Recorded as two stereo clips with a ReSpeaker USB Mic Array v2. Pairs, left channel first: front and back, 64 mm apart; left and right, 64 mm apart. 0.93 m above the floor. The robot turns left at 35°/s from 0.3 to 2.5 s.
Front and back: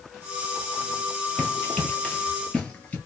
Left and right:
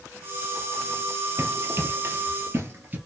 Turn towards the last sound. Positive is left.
turn(degrees=-50)